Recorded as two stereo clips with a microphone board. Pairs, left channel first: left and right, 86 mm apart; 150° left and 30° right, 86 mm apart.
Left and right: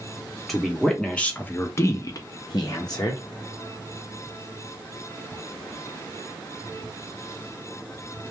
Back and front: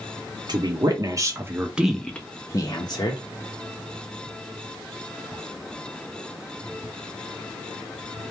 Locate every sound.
0.5 s a woman speaking: straight ahead, 0.9 m; by 3.2 s 130° left, 0.8 m